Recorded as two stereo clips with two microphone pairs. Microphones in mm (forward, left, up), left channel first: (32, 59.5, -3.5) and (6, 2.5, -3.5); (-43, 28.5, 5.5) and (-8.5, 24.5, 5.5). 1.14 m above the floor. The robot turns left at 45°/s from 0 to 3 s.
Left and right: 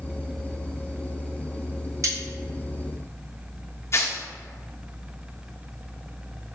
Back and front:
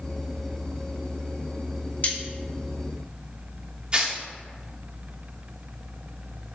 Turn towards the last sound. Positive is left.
turn(degrees=50)